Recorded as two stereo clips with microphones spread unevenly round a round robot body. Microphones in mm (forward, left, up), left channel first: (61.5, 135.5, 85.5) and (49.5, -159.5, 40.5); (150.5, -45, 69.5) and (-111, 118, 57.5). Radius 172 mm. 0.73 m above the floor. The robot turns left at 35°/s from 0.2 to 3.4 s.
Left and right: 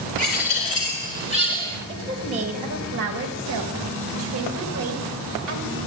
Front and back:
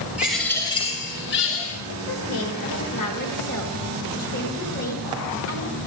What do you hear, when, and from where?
0.2 s a bird: 60° left, 2.5 m; by 1.8 s 5° left, 2.5 m
1.9 s a woman speaking: 15° right, 1.8 m; by 5.8 s 70° right, 1.8 m